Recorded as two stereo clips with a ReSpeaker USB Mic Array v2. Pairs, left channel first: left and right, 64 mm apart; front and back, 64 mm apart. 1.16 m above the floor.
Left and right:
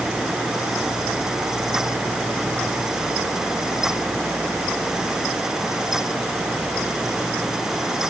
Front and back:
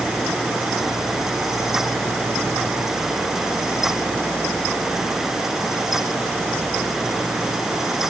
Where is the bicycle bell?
No bicycle bell in this recording.